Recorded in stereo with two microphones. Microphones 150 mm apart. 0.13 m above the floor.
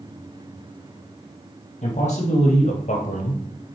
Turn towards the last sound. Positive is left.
turn(degrees=50)  # may be behind; listen again after turning